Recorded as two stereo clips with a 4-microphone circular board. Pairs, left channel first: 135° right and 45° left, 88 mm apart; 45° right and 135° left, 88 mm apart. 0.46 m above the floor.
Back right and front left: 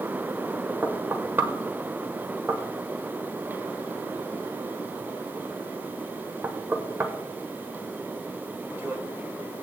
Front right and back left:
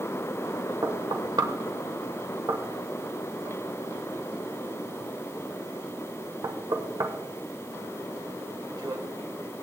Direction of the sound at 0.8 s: 105° left.